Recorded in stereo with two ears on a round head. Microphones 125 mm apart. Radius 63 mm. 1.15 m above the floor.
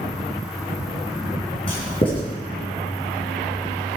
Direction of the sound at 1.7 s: 40° left (ahead or behind).